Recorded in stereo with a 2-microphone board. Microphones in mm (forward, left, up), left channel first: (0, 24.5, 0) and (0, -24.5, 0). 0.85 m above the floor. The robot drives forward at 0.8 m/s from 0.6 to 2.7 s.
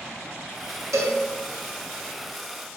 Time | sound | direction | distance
0.9 | a cowbell | 80° right | 0.7 m